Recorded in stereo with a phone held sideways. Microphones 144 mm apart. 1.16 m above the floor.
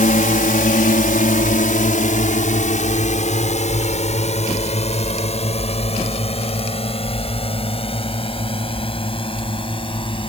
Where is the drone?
65° left (ahead or behind); by 10.3 s 35° left (ahead or behind).